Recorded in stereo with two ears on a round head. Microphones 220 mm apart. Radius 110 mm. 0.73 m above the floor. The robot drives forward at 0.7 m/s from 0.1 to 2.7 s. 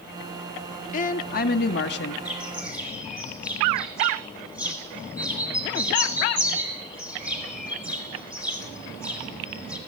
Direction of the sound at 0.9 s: 35° left (ahead or behind).